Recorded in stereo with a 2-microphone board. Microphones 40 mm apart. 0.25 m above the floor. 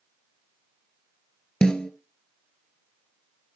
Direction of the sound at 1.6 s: 20° left (ahead or behind).